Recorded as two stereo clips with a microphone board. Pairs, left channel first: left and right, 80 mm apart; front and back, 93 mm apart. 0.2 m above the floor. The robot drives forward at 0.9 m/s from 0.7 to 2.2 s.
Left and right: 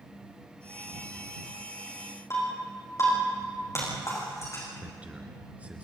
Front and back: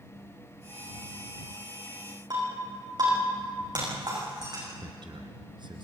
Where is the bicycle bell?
No bicycle bell in this recording.